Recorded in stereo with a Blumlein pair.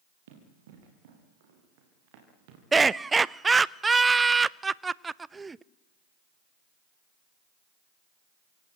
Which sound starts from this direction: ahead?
Laughter, at 2.7 s.